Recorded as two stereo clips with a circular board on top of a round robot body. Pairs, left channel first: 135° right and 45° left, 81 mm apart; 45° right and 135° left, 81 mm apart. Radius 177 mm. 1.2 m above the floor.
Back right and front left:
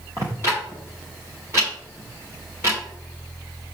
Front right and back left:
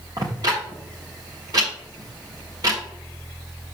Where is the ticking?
100° left, 0.5 m.